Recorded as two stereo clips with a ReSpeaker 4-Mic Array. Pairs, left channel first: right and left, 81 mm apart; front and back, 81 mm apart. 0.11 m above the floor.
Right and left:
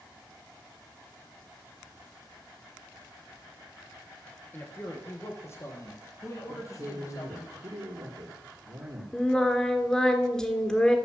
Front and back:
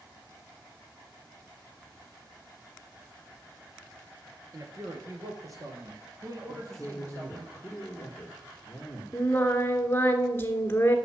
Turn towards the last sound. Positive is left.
turn(degrees=-15)